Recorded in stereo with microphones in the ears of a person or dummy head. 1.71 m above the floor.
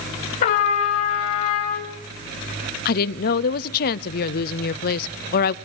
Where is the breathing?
I don't hear breathing.